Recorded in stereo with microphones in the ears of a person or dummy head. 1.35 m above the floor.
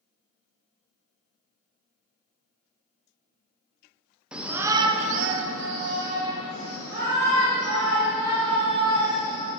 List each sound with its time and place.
4.3 s a shout: 5° right (ahead or behind), 0.7 m; by 9.5 s 35° right (ahead or behind), 3 m